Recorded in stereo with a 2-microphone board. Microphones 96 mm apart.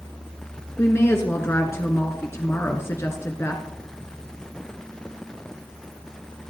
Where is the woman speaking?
30° left (ahead or behind), 1.2 m.